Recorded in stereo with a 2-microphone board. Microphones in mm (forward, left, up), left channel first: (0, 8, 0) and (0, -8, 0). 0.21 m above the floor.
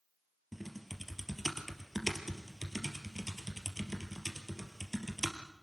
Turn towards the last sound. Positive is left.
turn(degrees=0)  # may be behind; listen again after turning